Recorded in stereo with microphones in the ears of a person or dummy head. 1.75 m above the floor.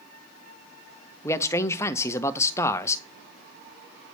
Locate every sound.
1.2 s a man speaking: 10° left (ahead or behind), 0.5 m